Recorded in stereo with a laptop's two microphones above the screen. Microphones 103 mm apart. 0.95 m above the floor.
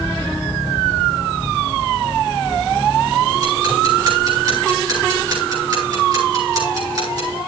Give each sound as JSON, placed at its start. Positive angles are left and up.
{"t": 3.3, "sound": "ticking", "side_deg": -40, "distance_m": 7.0}